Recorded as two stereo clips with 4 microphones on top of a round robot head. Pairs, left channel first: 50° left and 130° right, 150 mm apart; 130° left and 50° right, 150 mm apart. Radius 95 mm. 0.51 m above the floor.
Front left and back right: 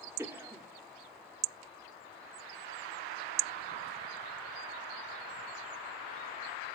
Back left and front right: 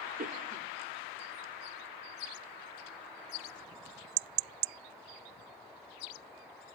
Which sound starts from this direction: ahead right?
A cough, at 0.2 s.